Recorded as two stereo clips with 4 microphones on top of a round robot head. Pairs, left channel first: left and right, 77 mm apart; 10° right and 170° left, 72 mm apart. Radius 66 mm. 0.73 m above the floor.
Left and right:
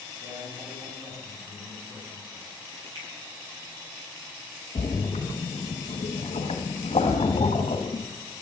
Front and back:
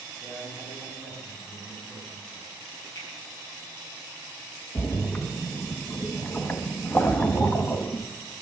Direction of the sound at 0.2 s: 135° right.